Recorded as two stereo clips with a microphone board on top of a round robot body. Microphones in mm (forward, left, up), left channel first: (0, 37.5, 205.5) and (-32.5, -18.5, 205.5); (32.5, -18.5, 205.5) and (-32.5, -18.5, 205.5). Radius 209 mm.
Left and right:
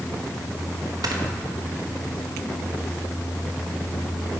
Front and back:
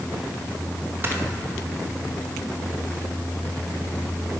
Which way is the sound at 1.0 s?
125° right.